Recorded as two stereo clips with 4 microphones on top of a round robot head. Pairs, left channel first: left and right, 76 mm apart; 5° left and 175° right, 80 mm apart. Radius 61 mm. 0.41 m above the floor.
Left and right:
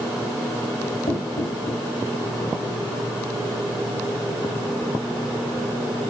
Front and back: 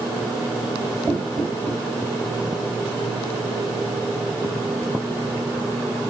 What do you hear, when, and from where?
1.1 s knocking: 120° left, 1.6 m